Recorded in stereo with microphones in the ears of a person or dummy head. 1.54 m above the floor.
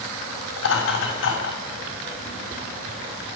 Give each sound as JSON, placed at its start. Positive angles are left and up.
{"t": 0.6, "sound": "laughter", "side_deg": 75, "distance_m": 7.0}